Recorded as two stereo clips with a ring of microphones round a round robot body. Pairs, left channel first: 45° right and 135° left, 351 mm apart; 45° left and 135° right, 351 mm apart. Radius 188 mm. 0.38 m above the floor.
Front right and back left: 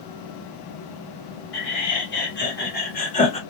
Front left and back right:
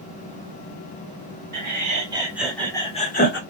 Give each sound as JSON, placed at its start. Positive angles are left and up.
{"t": 1.5, "sound": "laughter", "azimuth_deg": -85, "distance_m": 1.8}